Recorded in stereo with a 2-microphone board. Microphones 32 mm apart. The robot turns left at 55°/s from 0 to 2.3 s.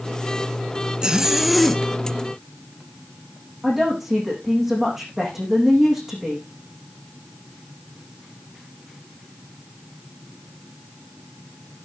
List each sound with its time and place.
1.0 s a zipper: 150° right, 1.5 m; by 1.8 s 165° left, 1.5 m
3.6 s a woman speaking: 10° right (ahead or behind), 8.5 m